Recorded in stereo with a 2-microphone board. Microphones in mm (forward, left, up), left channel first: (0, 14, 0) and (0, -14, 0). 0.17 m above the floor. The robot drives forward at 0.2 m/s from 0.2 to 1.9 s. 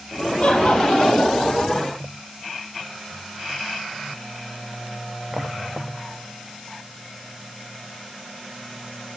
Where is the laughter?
55° left (ahead or behind), 5 m.